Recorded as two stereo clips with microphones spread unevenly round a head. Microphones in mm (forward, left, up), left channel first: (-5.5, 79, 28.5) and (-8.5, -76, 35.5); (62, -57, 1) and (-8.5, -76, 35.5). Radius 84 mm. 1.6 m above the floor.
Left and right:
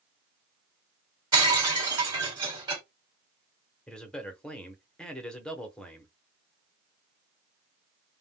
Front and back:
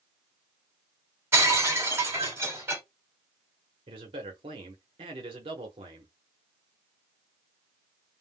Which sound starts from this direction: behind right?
Breaking glass, at 1.3 s.